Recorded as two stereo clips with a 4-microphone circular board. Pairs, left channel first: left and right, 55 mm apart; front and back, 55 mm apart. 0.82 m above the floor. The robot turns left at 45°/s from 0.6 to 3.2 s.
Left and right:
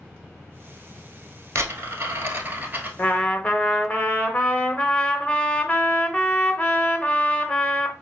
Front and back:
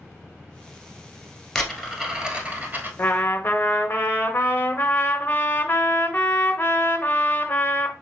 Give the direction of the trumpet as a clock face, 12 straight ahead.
10 o'clock.